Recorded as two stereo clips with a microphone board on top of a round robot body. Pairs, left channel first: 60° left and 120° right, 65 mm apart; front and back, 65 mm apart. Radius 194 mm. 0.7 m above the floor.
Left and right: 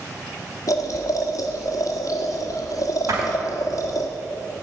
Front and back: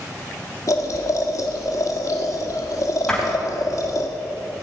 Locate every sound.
0.7 s boiling: 30° left, 1.8 m
3.1 s a door slam: 80° right, 4.5 m